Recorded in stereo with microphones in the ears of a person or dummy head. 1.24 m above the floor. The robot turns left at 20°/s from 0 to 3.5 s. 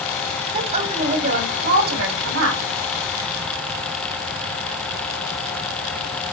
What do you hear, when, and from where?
0.5 s a woman speaking: 25° right, 4 m; by 2.6 s 65° right, 4 m